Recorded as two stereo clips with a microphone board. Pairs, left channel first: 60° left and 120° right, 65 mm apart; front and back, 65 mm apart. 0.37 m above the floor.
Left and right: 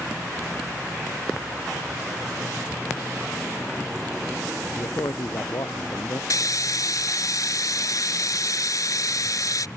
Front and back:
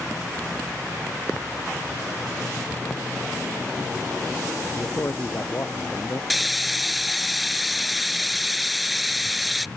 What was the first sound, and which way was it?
A man speaking, 45° left.